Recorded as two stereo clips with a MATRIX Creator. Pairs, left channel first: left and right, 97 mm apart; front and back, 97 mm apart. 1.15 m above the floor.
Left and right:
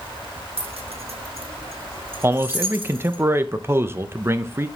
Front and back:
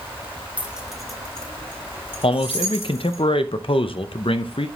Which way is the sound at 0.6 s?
105° right.